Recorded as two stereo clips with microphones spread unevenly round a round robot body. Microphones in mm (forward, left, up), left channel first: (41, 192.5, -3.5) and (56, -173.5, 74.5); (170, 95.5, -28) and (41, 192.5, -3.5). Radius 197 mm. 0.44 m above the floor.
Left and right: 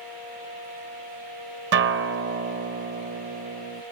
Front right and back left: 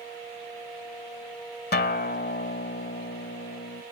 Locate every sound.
1.7 s a guitar: 25° right